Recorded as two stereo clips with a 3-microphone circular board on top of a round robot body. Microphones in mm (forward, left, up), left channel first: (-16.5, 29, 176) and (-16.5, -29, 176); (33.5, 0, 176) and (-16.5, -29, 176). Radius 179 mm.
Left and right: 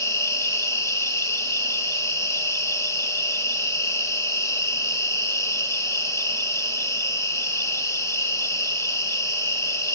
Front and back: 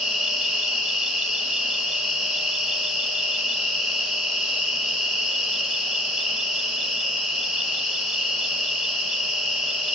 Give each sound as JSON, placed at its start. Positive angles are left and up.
{"t": 0.0, "sound": "an insect", "azimuth_deg": 115, "distance_m": 2.5}